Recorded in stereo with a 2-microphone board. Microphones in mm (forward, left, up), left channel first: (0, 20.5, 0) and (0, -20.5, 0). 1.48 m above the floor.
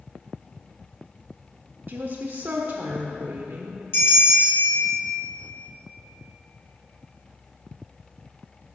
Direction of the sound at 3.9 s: 70° left (ahead or behind).